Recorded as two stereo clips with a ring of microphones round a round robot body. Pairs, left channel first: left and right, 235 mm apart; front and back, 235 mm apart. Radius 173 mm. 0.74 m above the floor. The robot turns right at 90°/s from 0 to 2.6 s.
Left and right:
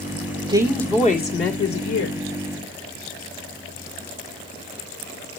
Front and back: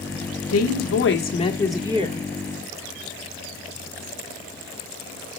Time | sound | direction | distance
0.5 | a woman speaking | 20° right | 1.9 m